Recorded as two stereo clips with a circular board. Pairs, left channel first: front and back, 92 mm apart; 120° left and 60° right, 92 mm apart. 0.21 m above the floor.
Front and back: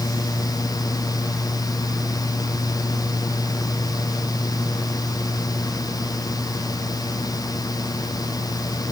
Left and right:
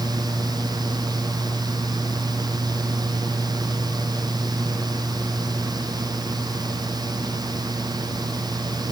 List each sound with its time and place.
Only background noise.